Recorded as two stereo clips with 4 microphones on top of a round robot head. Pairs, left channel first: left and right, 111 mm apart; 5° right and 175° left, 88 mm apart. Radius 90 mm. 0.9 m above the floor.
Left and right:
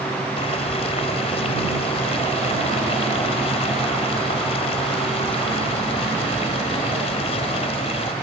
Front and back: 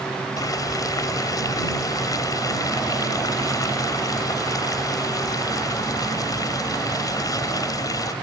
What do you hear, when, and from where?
0.4 s boiling: 45° left